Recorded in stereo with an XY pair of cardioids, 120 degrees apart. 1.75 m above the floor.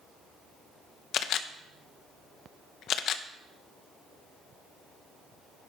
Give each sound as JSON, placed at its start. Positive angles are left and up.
{"t": 1.1, "sound": "a camera shutter", "azimuth_deg": 65, "distance_m": 0.7}